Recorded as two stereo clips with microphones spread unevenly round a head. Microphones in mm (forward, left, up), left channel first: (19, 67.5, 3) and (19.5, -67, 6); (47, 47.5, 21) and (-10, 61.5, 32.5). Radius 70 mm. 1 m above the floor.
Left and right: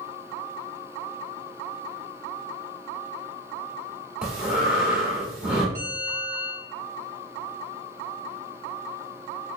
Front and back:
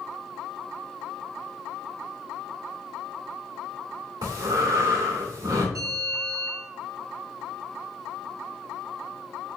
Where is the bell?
165° left, 1.5 m.